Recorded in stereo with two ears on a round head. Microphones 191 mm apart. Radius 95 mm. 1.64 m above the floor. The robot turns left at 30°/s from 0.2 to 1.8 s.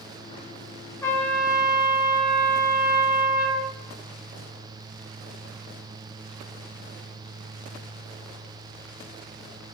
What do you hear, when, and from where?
1.0 s a trumpet: 10° left (ahead or behind), 0.6 m; by 3.7 s 5° right (ahead or behind), 0.6 m